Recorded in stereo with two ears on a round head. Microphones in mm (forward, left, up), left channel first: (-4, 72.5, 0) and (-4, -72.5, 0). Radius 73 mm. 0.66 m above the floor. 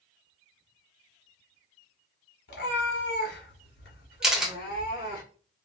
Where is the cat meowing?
75° left (ahead or behind), 1.2 m; by 5.2 s 55° left (ahead or behind), 2.5 m.